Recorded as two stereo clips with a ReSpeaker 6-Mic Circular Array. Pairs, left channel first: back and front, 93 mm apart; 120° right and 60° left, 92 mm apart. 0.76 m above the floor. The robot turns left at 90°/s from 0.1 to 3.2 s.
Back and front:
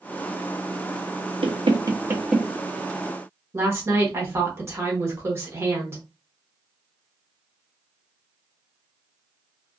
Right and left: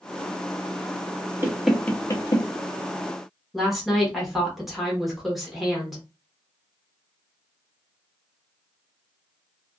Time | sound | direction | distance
1.4 | knocking | straight ahead | 0.6 m
3.5 | a woman speaking | 25° right | 1.0 m